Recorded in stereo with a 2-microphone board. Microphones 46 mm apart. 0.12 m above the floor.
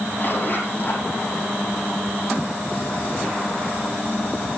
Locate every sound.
0.2 s a zipper: 45° left (ahead or behind), 6 m